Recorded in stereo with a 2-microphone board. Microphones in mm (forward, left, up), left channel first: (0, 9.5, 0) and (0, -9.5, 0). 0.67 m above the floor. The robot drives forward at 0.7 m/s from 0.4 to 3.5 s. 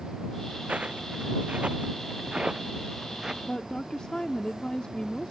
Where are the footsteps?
70° right (ahead or behind); by 3.3 s 25° right (ahead or behind).